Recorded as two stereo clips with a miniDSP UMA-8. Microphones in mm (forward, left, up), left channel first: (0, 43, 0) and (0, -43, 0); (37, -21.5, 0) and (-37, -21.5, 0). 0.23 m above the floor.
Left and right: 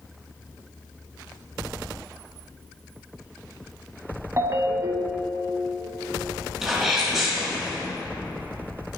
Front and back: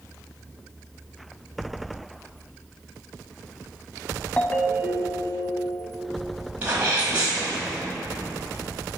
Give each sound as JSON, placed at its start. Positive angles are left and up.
{"t": 4.4, "sound": "a ringtone", "azimuth_deg": -65, "distance_m": 0.6}
{"t": 6.6, "sound": "a sneeze", "azimuth_deg": -160, "distance_m": 1.4}